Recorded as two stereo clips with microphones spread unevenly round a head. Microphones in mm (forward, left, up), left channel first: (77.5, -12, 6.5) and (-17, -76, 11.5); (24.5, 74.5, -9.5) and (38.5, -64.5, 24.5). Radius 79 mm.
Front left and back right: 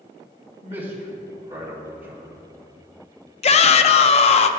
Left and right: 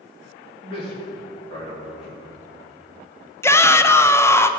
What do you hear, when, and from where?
0.6 s a man speaking: 155° left, 2 m
3.4 s a shout: 35° left, 0.5 m